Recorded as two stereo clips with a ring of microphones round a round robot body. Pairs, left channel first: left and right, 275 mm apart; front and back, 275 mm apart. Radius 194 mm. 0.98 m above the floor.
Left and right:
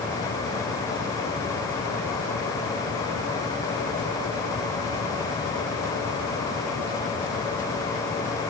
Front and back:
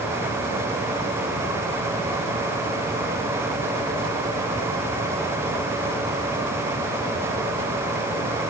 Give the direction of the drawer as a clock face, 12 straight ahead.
No drawer in this recording.